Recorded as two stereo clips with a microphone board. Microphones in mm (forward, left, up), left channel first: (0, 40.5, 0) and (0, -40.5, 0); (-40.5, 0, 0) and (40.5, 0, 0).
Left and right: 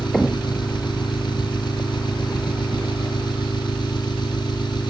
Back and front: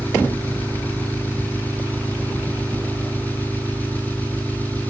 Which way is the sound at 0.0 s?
110° left.